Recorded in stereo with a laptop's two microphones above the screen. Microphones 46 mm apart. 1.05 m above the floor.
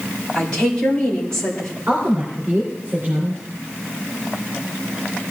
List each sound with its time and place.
0.3 s a woman speaking: 15° left (ahead or behind), 4 m
1.9 s a woman speaking: 45° right (ahead or behind), 3 m